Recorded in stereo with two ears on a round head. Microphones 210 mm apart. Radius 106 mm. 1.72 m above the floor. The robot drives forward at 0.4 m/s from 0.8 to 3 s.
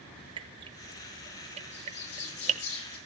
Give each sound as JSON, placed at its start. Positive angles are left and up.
{"t": 0.4, "sound": "dripping", "side_deg": -20, "distance_m": 1.3}
{"t": 1.7, "sound": "a bird", "side_deg": 75, "distance_m": 4.5}